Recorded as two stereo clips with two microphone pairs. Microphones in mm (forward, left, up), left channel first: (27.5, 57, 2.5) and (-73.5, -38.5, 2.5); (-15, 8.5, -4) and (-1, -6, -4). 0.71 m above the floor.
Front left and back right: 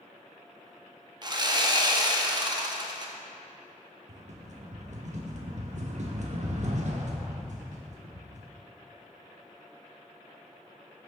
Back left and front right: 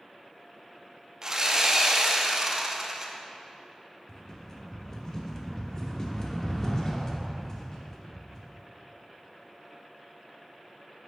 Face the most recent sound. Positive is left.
turn(degrees=-165)